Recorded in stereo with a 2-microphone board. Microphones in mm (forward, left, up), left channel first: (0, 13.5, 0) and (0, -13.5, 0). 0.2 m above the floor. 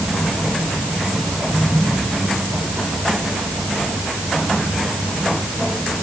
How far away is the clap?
I don't hear a clap.